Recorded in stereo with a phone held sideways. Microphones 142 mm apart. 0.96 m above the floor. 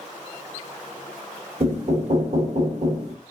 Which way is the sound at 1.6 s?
50° right (ahead or behind).